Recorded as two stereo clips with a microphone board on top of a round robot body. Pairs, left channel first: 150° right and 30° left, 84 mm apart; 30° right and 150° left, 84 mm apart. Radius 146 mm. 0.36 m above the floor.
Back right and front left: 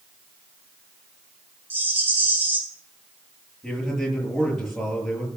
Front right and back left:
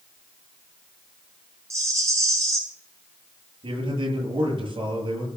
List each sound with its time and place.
1.7 s a rattle: 95° left, 5 m
3.6 s a man speaking: 125° left, 9 m